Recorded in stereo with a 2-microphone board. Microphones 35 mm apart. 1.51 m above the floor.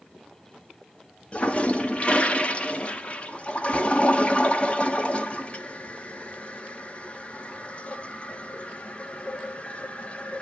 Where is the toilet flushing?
35° left (ahead or behind), 1.3 m.